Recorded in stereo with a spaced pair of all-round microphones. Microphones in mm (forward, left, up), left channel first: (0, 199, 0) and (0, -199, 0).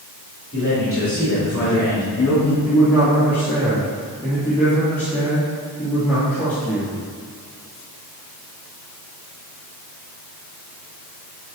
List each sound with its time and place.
0.5 s a man speaking: 50° left (ahead or behind), 3 m; by 2.5 s 45° left (ahead or behind), 5 m
2.6 s a man speaking: 5° left (ahead or behind), 3 m